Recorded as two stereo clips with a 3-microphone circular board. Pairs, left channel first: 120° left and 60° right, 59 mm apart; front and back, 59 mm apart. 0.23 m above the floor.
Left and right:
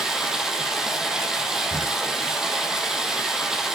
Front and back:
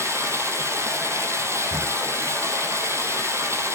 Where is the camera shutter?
135° right, 2 m.